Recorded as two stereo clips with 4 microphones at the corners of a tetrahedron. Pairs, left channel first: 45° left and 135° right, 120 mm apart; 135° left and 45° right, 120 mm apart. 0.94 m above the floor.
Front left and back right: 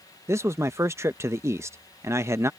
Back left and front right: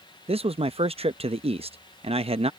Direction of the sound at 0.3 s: 70° right.